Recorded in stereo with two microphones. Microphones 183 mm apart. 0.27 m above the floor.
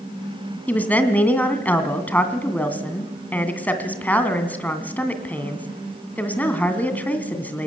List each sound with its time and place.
0.7 s a woman speaking: 10° left (ahead or behind), 2.5 m